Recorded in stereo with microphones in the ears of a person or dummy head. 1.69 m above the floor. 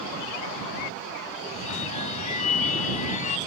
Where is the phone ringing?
45° left (ahead or behind).